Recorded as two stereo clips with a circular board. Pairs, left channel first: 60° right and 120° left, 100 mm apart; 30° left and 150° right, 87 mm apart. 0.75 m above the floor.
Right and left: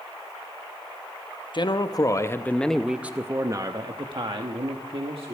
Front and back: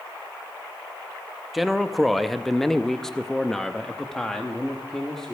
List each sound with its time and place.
1.5 s a man speaking: 60° right, 0.8 m; by 5.3 s 115° left, 1.4 m